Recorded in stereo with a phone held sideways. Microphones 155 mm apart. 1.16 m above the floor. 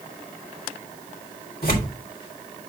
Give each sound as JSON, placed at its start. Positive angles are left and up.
{"t": 1.6, "sound": "tearing paper", "side_deg": 80, "distance_m": 3.0}